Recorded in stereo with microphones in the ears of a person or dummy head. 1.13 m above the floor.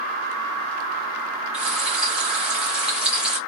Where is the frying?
5° right (ahead or behind), 1.1 m.